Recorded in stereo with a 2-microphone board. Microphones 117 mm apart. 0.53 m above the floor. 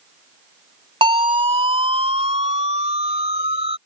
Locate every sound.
1.0 s a siren: 45° right (ahead or behind); by 3.8 s 60° right (ahead or behind)